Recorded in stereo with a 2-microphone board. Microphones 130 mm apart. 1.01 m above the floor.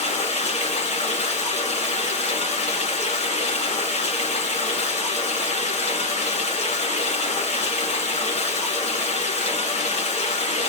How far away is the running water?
About 1.7 m.